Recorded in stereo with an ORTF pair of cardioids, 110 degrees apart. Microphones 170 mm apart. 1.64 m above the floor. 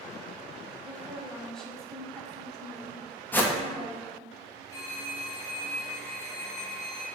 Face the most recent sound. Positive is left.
turn(degrees=15)